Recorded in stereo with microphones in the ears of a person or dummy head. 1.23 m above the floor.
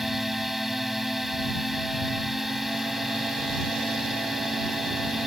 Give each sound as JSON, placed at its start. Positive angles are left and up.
{"t": 0.0, "sound": "a drone", "side_deg": 0}